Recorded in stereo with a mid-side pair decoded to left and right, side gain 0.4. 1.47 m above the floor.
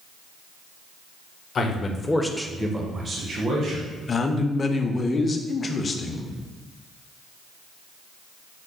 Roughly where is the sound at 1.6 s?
Ahead left.